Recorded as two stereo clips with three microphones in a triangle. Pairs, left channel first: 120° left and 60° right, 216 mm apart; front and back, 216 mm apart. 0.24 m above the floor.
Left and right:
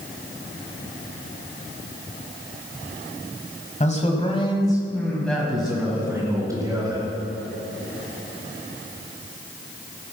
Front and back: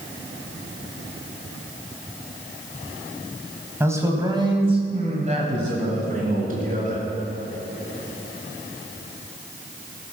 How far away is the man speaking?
About 1.8 m.